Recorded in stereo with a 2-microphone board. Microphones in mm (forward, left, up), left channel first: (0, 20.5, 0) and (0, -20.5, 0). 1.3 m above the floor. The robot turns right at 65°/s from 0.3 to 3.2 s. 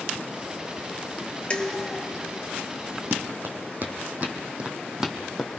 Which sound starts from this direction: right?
Running footsteps, at 3.1 s.